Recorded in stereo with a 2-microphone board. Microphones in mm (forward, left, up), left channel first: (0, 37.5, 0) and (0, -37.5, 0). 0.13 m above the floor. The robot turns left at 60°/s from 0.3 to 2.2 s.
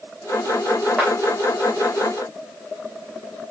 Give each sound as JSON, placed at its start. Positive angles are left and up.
{"t": 1.0, "sound": "a clap", "side_deg": -5, "distance_m": 7.0}